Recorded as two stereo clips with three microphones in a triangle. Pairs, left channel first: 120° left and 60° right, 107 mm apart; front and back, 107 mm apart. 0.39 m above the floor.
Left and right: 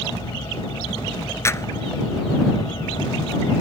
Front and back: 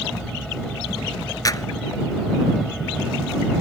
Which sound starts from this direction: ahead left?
A clap, at 1.4 s.